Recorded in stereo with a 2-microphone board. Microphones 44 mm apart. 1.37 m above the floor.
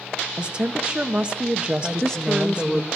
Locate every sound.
0.4 s a woman speaking: 25° right (ahead or behind), 1.0 m
1.8 s a woman speaking: 15° left (ahead or behind), 1.2 m